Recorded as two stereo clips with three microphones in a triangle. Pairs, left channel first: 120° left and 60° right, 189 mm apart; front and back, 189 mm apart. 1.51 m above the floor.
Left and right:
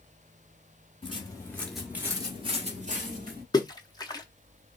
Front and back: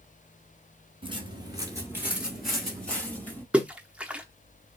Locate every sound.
1.0 s footsteps: 145° left, 1.7 m; by 3.4 s 75° right, 2.5 m
3.5 s a splash: 105° left, 0.6 m